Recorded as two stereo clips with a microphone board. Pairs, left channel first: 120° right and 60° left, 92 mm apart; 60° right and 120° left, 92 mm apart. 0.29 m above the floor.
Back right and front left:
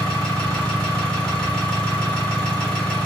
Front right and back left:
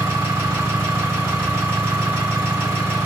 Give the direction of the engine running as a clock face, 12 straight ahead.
6 o'clock.